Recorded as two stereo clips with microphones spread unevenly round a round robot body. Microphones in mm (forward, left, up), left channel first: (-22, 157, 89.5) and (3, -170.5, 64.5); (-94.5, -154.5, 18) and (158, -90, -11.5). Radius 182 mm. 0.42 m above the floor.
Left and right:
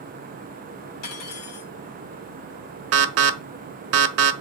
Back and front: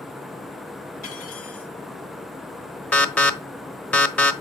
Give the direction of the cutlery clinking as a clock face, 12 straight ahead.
8 o'clock.